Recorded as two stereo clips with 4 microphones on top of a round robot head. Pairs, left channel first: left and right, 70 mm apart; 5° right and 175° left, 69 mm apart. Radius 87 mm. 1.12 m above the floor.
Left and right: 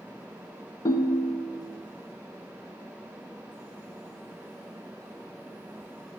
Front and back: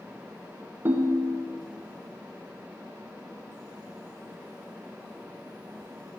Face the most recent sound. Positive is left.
turn(degrees=120)